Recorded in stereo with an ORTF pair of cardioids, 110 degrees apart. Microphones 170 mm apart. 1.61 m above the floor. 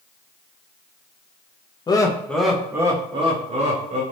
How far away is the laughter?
About 0.7 m.